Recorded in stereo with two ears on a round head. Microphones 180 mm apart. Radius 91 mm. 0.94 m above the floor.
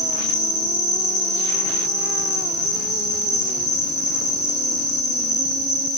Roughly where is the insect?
Left.